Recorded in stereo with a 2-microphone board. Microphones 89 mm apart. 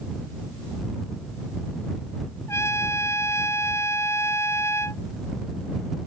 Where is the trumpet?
30° left (ahead or behind).